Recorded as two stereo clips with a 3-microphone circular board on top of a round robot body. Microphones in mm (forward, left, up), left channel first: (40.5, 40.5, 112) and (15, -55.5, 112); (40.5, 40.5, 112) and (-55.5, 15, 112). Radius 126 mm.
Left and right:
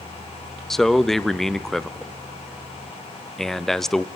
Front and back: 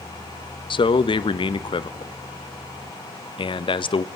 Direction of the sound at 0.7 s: 10° right.